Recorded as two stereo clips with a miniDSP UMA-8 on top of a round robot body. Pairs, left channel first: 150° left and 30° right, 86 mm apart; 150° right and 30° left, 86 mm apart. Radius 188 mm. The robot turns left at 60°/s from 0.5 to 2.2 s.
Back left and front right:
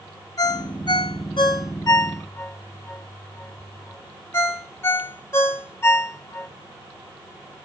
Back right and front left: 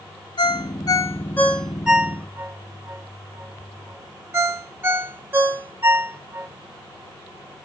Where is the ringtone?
170° right, 0.7 m; by 6.5 s 90° left, 0.7 m.